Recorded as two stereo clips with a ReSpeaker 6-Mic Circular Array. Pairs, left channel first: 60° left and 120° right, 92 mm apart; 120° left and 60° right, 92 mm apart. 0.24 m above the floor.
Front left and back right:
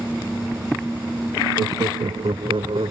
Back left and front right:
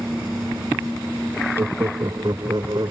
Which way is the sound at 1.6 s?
100° right.